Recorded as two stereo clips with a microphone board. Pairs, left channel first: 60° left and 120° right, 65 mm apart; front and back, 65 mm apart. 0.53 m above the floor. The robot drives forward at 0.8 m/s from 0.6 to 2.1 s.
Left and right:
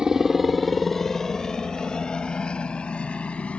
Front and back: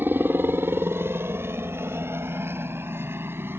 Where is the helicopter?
170° left; by 3.6 s 130° left.